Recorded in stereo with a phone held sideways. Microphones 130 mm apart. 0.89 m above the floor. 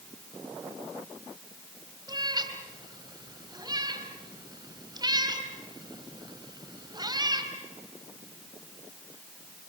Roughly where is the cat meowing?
Right.